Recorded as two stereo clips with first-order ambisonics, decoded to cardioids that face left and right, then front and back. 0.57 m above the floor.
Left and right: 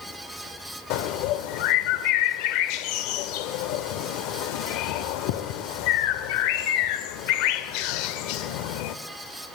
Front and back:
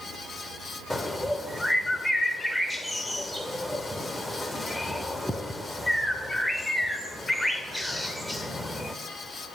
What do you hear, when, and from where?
0.9 s a bird: 85° left, 0.7 m